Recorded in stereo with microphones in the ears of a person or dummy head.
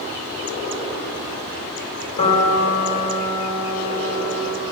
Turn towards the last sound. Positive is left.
turn(degrees=40)  # may be behind; listen again after turning